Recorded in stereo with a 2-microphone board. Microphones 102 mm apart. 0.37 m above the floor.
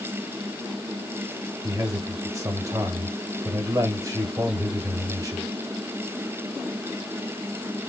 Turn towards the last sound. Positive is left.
turn(degrees=-30)  # may be behind; listen again after turning